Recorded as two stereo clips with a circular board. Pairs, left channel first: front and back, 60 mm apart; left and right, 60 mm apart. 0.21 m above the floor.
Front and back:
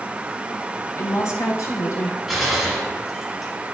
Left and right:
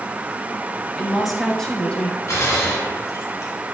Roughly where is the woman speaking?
Ahead.